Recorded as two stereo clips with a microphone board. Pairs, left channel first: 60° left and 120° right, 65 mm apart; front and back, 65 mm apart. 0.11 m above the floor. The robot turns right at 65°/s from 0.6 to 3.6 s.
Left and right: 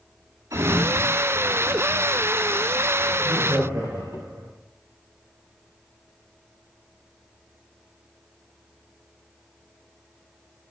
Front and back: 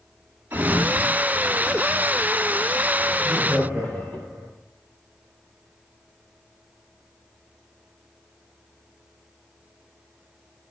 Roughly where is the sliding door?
Behind right.